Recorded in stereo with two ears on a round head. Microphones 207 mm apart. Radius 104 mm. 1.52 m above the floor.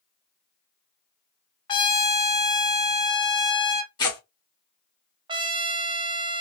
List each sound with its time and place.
1.7 s a trumpet: 20° left (ahead or behind), 0.8 m
4.0 s tearing paper: 20° left (ahead or behind), 1.9 m
5.3 s a trumpet: 20° right (ahead or behind), 0.5 m